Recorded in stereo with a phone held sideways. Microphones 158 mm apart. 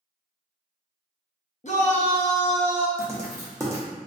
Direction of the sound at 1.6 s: 50° left (ahead or behind).